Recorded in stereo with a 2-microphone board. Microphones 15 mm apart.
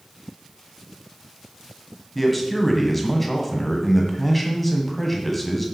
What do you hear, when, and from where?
2.1 s a man speaking: 5° left (ahead or behind), 1.6 m